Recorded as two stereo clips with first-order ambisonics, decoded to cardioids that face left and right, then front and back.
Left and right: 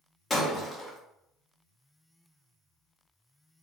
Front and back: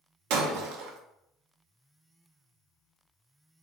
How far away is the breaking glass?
About 0.7 m.